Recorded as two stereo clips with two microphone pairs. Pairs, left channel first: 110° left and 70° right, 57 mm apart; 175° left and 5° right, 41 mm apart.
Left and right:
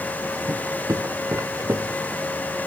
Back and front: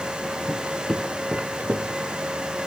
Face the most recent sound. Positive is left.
turn(degrees=-20)